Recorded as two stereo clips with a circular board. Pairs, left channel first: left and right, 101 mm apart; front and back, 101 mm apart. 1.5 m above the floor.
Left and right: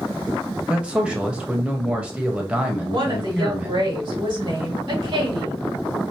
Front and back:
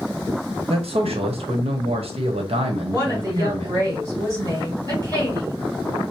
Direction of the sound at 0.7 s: 170° right.